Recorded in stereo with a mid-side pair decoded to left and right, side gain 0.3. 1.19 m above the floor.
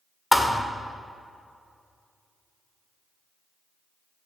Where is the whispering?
No whispering in this recording.